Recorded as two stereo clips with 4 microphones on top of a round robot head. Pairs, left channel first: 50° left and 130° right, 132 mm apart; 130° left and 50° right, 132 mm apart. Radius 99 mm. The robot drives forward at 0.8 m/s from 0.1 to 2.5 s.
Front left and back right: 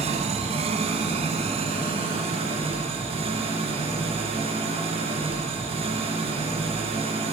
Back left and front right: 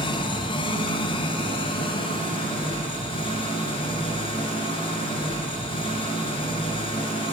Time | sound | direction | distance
0.0 | an engine running | 175° right | 2 m